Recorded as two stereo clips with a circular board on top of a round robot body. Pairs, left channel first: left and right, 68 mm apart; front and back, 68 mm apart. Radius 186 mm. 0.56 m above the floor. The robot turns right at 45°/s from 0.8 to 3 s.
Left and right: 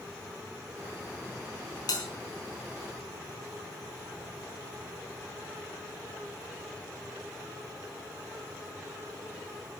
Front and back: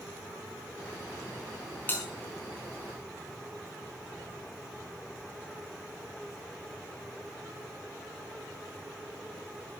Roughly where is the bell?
Ahead left.